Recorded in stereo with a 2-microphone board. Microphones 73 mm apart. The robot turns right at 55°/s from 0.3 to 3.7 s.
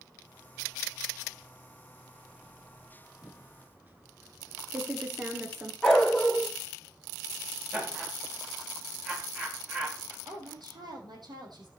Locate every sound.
3.2 s typing on a keyboard: 20° right (ahead or behind), 1.3 m; by 5.7 s 25° right (ahead or behind), 1.3 m
5.8 s a dog barking: 5° left (ahead or behind), 0.9 m
7.7 s laughter: 15° right (ahead or behind), 9.5 m
10.2 s a woman speaking: 70° right (ahead or behind), 4 m